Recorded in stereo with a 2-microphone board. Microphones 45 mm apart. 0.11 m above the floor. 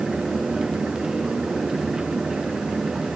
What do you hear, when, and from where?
Only background noise.